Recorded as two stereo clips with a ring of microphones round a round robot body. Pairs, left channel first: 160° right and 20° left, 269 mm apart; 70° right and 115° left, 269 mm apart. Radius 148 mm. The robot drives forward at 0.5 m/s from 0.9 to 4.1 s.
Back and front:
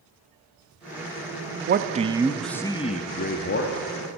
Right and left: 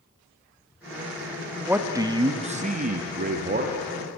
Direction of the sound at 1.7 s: 30° left.